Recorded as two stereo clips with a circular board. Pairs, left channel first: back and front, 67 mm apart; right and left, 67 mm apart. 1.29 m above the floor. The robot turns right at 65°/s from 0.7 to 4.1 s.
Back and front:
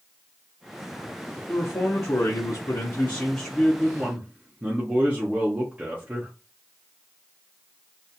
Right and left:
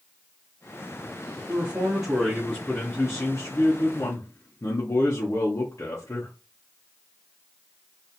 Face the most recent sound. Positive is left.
turn(degrees=-70)